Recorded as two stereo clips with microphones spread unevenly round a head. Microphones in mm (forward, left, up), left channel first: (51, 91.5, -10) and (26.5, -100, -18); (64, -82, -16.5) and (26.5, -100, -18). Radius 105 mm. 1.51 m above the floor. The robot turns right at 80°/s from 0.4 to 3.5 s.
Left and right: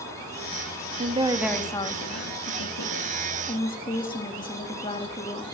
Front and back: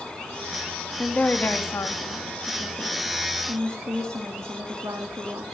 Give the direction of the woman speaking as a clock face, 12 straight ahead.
2 o'clock.